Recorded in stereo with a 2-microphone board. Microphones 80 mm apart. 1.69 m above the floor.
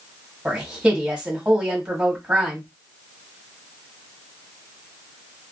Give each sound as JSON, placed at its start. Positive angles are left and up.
{"t": 0.5, "sound": "a woman speaking", "side_deg": -15, "distance_m": 1.3}